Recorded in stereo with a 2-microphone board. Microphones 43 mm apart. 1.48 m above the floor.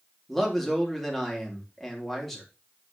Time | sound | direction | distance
0.3 | a man speaking | 5° left (ahead or behind) | 3 m